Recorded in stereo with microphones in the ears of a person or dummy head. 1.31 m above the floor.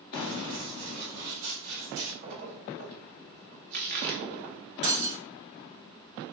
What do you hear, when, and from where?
0.1 s running footsteps: 40° right (ahead or behind), 2 m; by 2.1 s 60° right (ahead or behind), 3 m
2.2 s a splash: 50° right (ahead or behind), 0.8 m
4.8 s breaking glass: 40° right (ahead or behind), 2 m